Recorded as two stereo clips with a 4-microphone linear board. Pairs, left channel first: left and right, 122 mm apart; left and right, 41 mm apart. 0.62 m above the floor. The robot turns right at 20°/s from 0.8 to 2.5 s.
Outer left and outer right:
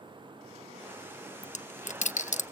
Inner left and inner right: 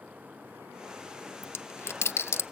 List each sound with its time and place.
1.4 s a dropped coin: 75° left (ahead or behind), 0.5 m; by 2.4 s 85° left, 0.5 m